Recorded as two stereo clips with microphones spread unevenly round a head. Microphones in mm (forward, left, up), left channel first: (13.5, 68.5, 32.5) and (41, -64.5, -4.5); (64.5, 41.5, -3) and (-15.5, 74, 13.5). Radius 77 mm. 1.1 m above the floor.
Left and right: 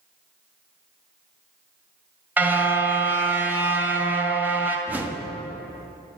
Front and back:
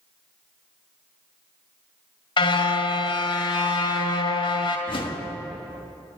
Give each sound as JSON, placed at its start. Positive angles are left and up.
{"t": 2.4, "sound": "a car horn", "azimuth_deg": 5, "distance_m": 2.0}
{"t": 4.9, "sound": "a whoosh", "azimuth_deg": 0, "distance_m": 1.3}